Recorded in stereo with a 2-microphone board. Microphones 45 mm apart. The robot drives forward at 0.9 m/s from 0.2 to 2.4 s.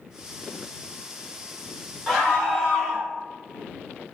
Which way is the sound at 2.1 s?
15° left (ahead or behind).